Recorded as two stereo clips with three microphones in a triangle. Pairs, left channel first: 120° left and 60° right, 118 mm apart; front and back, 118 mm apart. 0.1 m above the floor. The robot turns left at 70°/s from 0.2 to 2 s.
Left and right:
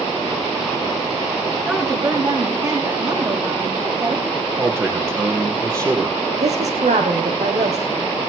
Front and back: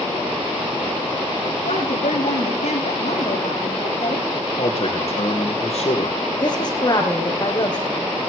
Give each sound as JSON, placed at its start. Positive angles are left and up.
{"t": 1.6, "sound": "a woman speaking", "azimuth_deg": 20, "distance_m": 6.0}
{"t": 4.6, "sound": "a man speaking", "azimuth_deg": -5, "distance_m": 4.0}
{"t": 6.4, "sound": "a woman speaking", "azimuth_deg": -50, "distance_m": 4.0}